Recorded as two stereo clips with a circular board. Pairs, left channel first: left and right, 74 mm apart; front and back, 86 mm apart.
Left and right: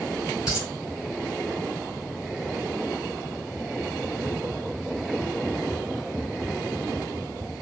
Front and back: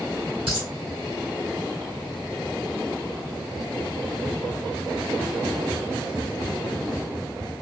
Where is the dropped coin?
170° right, 2.5 m.